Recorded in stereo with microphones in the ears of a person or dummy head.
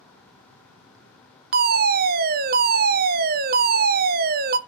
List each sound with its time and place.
1.5 s a fire alarm: 40° right (ahead or behind), 0.8 m